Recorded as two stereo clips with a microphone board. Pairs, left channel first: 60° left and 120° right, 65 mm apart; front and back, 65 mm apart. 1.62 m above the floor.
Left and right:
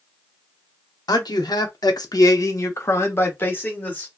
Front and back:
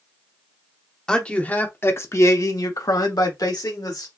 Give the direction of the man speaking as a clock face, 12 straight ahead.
9 o'clock.